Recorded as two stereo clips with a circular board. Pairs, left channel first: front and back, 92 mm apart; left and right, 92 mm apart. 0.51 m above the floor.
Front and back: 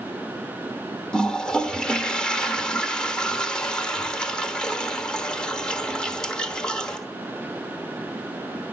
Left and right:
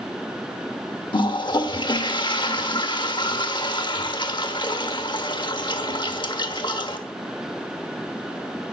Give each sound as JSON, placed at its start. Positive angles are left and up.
{"t": 1.1, "sound": "a toilet flushing", "azimuth_deg": 80, "distance_m": 1.2}